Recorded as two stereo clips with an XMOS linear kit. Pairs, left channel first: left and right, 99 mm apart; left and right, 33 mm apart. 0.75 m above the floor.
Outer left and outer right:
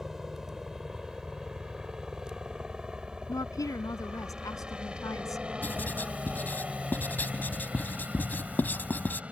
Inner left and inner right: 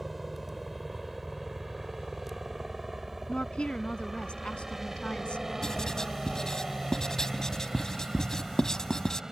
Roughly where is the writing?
Centre.